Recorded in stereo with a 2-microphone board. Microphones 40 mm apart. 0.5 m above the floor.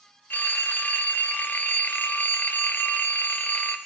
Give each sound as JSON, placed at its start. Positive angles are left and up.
{"t": 0.3, "sound": "a phone ringing", "side_deg": 50, "distance_m": 0.9}